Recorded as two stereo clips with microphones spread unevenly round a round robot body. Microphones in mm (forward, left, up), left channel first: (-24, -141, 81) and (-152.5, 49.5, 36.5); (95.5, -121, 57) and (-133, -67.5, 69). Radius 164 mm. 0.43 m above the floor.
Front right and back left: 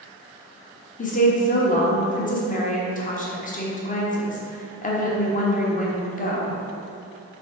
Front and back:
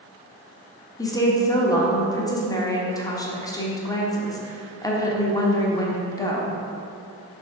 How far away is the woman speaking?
About 1.2 m.